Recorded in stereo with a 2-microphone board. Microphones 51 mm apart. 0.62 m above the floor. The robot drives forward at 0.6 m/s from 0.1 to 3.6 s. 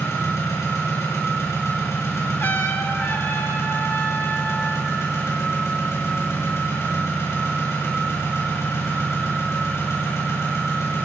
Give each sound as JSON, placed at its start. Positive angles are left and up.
{"t": 0.0, "sound": "an engine running", "side_deg": 85, "distance_m": 6.0}
{"t": 2.4, "sound": "a trumpet", "side_deg": 55, "distance_m": 1.8}